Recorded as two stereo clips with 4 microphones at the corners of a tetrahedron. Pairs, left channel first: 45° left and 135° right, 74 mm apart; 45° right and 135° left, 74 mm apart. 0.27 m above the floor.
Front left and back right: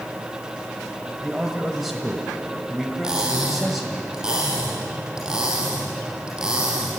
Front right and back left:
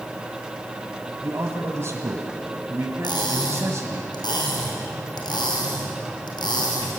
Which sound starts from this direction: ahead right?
Cutlery clinking, at 3.0 s.